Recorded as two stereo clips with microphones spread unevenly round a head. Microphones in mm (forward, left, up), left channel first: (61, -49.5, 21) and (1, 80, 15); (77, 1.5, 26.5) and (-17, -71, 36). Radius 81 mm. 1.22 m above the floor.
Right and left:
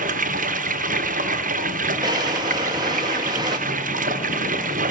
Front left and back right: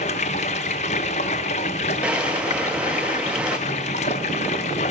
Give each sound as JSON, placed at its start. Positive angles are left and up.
{"t": 0.0, "sound": "running water", "azimuth_deg": 85, "distance_m": 0.7}
{"t": 2.0, "sound": "a drawer", "azimuth_deg": 150, "distance_m": 0.6}